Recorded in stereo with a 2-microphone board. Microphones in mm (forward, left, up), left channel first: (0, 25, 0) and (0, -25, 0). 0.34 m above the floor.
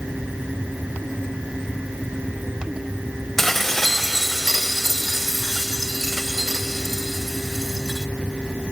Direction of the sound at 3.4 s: 10° left (ahead or behind).